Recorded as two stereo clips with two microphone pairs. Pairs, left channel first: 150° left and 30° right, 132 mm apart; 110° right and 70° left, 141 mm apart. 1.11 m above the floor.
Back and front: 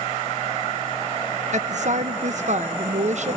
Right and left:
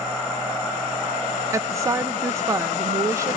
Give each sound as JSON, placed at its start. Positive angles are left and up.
{"t": 1.5, "sound": "a woman speaking", "azimuth_deg": -5, "distance_m": 0.8}